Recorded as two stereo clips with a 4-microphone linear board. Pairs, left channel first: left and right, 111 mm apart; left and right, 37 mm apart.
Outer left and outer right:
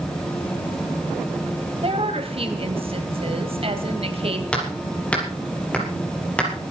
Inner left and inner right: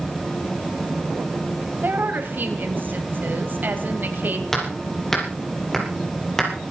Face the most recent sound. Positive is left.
turn(degrees=10)  # may be behind; listen again after turning